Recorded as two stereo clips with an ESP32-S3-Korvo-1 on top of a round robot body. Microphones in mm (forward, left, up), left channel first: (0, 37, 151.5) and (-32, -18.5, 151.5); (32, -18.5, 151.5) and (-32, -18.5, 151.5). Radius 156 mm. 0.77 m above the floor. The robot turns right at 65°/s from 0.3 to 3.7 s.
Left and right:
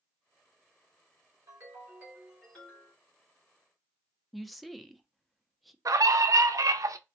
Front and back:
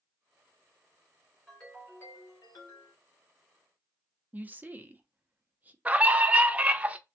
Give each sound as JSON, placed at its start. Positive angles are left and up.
{"t": 1.5, "sound": "a ringtone", "azimuth_deg": -90, "distance_m": 1.8}
{"t": 4.3, "sound": "a woman speaking", "azimuth_deg": 150, "distance_m": 0.6}
{"t": 5.8, "sound": "a scream", "azimuth_deg": -115, "distance_m": 0.5}